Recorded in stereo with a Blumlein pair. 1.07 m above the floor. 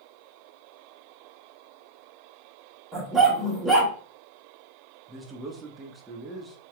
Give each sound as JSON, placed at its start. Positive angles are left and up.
{"t": 2.9, "sound": "a dog barking", "azimuth_deg": -5, "distance_m": 1.7}
{"t": 5.1, "sound": "a man speaking", "azimuth_deg": -10, "distance_m": 1.0}